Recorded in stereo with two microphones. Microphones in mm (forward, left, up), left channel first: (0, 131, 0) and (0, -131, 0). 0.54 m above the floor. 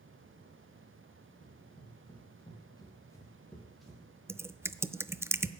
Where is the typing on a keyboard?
10° right (ahead or behind), 0.5 m.